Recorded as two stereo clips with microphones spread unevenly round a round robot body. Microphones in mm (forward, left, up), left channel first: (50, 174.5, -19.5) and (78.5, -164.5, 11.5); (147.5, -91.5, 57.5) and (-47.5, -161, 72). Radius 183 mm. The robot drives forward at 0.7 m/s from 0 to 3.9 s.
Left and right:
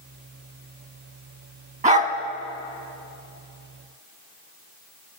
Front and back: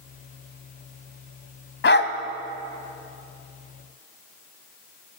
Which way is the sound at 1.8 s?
15° right.